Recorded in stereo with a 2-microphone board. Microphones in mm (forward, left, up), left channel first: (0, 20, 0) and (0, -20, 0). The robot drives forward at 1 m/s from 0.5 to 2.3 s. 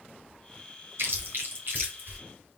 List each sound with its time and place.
1.0 s chewing: 65° right (ahead or behind), 2.5 m; by 2.2 s 50° right (ahead or behind), 3 m